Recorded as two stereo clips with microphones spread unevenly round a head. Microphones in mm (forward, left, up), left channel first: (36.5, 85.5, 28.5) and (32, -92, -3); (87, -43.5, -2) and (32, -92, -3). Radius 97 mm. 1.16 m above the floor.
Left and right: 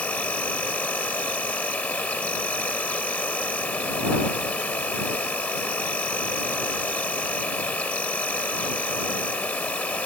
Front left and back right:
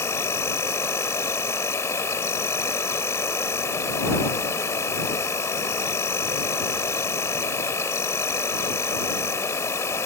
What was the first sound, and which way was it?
An insect, 25° left.